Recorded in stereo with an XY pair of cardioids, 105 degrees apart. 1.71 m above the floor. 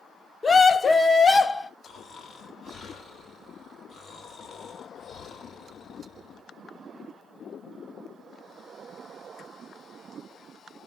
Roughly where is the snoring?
Ahead left.